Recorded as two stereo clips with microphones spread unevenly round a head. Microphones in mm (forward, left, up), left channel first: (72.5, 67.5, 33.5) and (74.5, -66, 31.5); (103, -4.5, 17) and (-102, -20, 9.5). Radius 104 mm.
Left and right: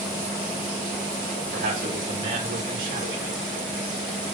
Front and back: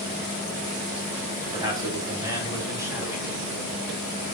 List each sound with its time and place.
1.5 s a man speaking: 105° right, 4 m; by 3.4 s 95° right, 2.5 m